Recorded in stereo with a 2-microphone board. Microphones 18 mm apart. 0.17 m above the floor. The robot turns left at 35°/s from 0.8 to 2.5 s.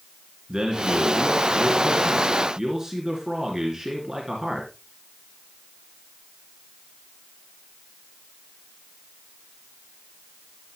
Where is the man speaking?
80° right, 2.5 m; by 4.7 s 140° right, 2.5 m.